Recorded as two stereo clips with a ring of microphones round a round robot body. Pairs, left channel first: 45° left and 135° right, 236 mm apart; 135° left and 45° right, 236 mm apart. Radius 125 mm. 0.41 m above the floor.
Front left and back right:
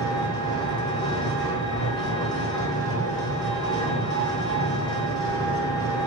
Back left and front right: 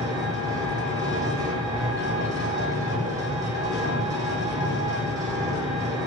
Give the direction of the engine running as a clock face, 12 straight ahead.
12 o'clock.